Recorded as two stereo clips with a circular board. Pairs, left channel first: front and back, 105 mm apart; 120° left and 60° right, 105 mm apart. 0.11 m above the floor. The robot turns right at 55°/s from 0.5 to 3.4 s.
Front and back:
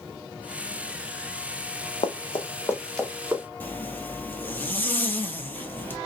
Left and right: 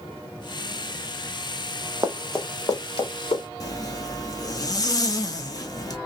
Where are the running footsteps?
Straight ahead, 0.8 m; by 3.4 s 115° left, 1.8 m.